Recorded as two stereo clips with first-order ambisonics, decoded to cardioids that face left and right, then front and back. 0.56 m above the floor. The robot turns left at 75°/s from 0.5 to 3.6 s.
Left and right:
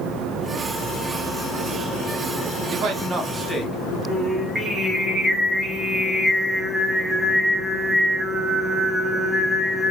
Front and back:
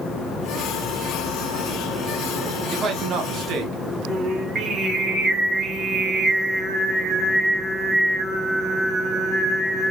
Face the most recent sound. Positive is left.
turn(degrees=-145)